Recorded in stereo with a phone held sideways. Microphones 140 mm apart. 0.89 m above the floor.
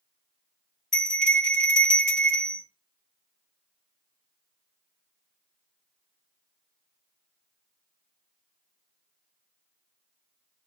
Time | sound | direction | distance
0.9 | a bell | 60° left (ahead or behind) | 1.4 m